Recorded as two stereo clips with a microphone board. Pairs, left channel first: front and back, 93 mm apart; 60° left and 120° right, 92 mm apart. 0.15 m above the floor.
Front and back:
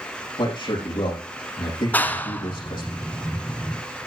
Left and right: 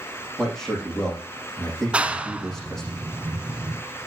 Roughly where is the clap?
Ahead right.